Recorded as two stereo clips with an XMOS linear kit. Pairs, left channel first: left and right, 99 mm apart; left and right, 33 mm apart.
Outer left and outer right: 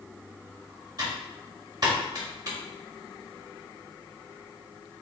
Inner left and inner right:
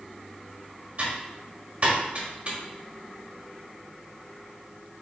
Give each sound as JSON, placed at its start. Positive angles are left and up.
{"t": 1.0, "sound": "typing on a keyboard", "side_deg": -45, "distance_m": 1.5}